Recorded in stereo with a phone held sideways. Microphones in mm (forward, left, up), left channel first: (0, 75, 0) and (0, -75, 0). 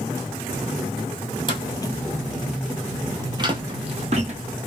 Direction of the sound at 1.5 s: 35° left (ahead or behind).